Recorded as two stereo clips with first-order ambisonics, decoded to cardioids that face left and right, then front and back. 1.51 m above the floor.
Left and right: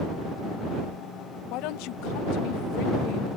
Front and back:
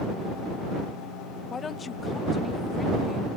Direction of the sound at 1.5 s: 70° left.